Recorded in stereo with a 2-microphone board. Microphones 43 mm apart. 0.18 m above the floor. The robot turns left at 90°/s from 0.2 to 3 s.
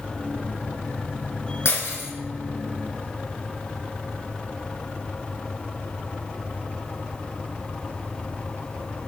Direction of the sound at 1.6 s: 105° left.